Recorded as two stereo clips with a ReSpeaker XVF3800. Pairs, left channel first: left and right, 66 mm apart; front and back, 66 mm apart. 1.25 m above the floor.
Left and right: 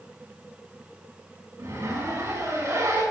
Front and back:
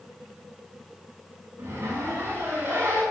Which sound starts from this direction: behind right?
A zipper, at 1.6 s.